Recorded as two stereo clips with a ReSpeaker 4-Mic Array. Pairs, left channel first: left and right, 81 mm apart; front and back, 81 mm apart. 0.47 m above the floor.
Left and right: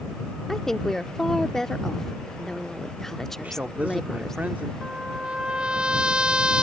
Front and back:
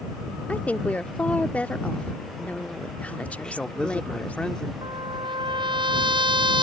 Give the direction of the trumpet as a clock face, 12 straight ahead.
6 o'clock.